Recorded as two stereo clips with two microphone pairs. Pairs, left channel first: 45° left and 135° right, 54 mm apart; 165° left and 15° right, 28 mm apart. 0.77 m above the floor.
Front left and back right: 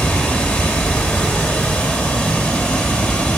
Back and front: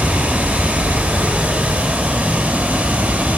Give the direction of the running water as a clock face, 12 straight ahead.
12 o'clock.